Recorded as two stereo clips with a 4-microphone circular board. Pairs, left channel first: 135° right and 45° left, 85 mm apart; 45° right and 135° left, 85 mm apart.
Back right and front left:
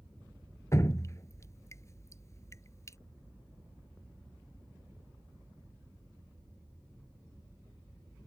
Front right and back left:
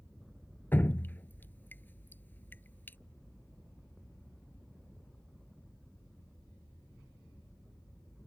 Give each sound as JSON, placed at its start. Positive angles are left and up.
{"t": 0.7, "sound": "dripping", "azimuth_deg": -100}